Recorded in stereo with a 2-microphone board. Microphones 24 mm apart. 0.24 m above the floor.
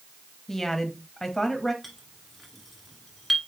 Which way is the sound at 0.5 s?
15° left (ahead or behind).